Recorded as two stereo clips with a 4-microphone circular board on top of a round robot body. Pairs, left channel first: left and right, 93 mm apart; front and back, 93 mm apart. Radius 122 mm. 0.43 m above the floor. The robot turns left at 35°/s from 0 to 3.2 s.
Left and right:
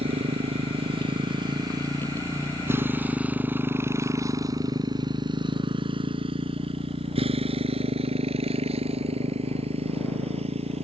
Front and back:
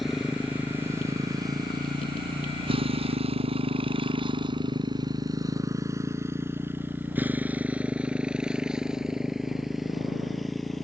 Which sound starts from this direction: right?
A motorcycle, at 0.0 s.